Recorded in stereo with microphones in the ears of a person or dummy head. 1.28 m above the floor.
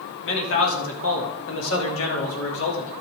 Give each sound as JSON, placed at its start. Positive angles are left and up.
{"t": 0.2, "sound": "a man speaking", "side_deg": 70, "distance_m": 3.5}